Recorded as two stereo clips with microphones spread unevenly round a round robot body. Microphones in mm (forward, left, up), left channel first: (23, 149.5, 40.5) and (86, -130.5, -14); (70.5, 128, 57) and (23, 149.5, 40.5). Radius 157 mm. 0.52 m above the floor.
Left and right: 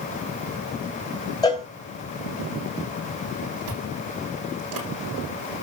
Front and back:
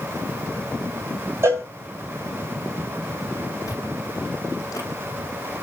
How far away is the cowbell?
About 2.5 m.